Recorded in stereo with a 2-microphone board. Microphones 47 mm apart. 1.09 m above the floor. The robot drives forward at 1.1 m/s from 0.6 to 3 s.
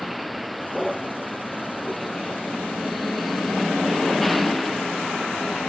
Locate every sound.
0.0 s a vehicle: centre (ahead or behind)